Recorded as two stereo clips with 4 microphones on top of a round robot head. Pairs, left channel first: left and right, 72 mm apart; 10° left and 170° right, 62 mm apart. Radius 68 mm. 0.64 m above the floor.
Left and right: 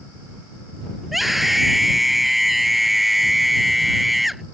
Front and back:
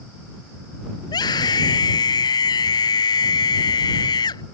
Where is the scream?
Straight ahead.